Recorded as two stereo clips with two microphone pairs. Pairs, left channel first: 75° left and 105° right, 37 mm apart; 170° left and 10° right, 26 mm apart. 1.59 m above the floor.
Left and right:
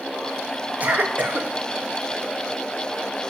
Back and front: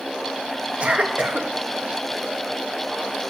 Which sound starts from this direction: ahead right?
A cough, at 0.8 s.